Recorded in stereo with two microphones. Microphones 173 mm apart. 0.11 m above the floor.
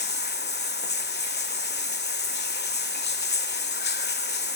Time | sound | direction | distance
0.0 | running water | 75° left (ahead or behind) | 0.8 m